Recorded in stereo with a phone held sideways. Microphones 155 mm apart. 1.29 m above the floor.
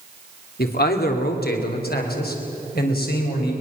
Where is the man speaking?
85° left, 2.5 m.